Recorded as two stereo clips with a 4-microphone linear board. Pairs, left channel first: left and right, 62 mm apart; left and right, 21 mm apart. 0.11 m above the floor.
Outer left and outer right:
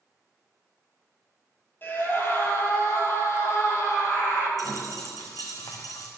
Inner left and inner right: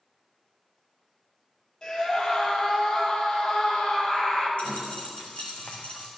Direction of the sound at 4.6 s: 80° left.